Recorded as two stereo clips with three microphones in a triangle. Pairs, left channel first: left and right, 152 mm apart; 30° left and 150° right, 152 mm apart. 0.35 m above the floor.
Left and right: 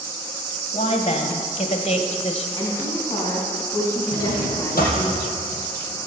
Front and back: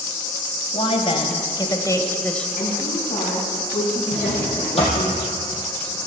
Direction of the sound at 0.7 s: 60° left.